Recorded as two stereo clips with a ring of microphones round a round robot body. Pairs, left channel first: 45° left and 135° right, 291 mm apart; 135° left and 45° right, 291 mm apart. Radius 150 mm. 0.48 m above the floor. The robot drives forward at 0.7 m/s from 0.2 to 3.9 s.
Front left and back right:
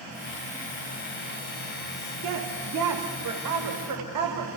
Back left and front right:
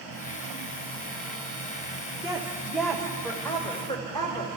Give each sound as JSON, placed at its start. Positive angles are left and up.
{"t": 2.2, "sound": "a woman speaking", "azimuth_deg": -120, "distance_m": 1.7}